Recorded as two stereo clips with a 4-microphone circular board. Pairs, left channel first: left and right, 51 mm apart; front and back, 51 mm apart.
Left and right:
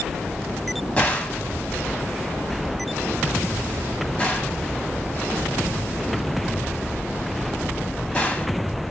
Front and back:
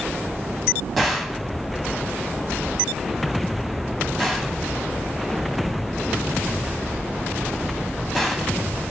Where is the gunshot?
85° left, 1.3 m.